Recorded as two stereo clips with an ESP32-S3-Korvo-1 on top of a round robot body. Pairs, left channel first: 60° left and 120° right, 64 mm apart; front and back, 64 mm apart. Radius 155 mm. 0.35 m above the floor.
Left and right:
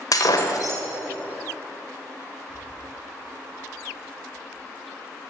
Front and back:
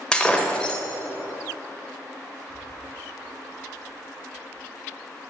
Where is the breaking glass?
75° left, 1.3 m.